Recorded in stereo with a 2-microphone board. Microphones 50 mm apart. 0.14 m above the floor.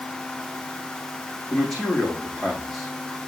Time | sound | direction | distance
1.5 | a man speaking | 5° left (ahead or behind) | 6 m